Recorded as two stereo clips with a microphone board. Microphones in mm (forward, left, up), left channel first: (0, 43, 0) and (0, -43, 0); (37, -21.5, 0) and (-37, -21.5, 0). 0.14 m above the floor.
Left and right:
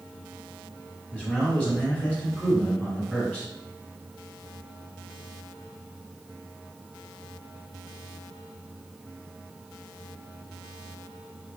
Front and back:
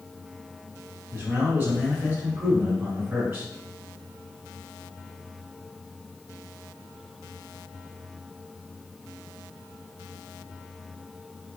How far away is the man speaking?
About 1.3 m.